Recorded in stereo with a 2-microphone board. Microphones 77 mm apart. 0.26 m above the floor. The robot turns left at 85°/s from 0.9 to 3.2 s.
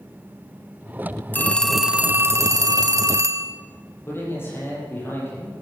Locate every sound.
1.3 s a phone ringing: 35° left, 1.0 m; by 3.5 s 125° right, 1.0 m
4.1 s a man speaking: 30° left (ahead or behind), 7 m